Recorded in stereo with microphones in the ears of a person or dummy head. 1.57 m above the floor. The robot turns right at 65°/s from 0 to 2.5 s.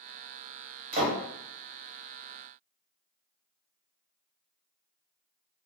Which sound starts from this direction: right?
A door slam, at 0.9 s.